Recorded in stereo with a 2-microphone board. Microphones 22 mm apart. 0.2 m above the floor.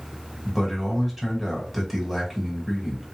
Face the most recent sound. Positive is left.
turn(degrees=-10)  # may be behind; listen again after turning